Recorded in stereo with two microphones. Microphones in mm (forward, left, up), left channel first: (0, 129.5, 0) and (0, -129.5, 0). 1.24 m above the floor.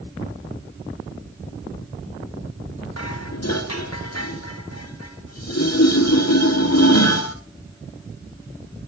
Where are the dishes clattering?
80° left, 2.5 m.